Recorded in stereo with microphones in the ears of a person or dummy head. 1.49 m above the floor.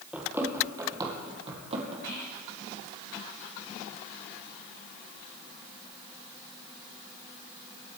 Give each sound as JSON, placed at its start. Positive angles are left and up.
{"t": 0.1, "sound": "running footsteps", "side_deg": -10, "distance_m": 2.0}
{"t": 2.0, "sound": "whispering", "side_deg": 20, "distance_m": 1.1}